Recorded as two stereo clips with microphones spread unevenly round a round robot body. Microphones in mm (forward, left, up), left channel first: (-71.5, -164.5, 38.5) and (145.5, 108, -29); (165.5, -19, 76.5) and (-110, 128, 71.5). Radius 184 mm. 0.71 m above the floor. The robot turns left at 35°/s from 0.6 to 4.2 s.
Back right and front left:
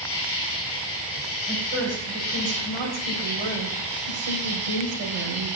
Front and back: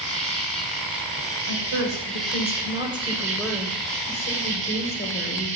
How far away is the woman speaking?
About 3 m.